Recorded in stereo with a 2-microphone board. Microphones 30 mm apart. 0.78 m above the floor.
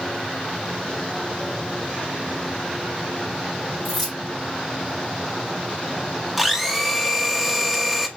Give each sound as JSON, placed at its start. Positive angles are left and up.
{"t": 3.9, "sound": "keys jangling", "side_deg": 5, "distance_m": 1.7}
{"t": 6.4, "sound": "a blender", "side_deg": -5, "distance_m": 0.7}